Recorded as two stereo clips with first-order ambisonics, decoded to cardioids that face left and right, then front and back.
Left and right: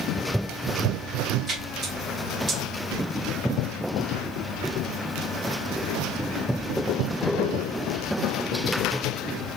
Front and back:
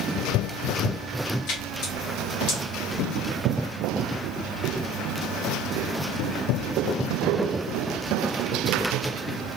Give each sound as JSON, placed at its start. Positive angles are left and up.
{"t": 1.5, "sound": "a splash", "azimuth_deg": -25, "distance_m": 1.4}